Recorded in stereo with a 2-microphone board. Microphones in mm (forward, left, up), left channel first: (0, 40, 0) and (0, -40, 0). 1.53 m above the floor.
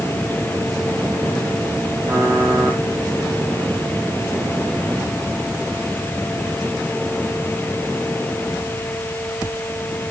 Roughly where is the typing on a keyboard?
Right.